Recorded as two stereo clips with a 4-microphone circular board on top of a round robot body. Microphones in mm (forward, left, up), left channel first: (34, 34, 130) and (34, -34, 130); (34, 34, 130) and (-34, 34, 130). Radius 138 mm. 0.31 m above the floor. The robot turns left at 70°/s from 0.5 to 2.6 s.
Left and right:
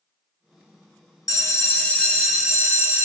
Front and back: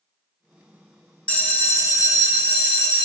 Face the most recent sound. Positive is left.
turn(degrees=-25)